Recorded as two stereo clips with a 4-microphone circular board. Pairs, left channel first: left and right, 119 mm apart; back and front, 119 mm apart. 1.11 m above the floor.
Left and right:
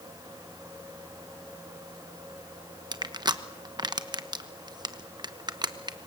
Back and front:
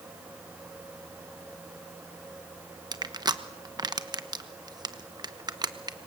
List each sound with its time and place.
2.9 s crushing: 45° right, 1.1 m